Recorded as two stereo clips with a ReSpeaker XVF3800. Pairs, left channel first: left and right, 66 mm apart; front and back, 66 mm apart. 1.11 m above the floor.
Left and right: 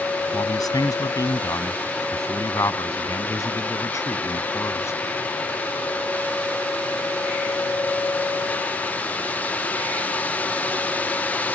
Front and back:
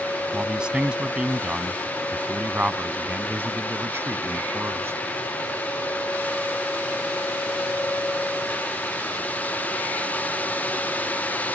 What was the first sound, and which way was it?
A man speaking, 105° left.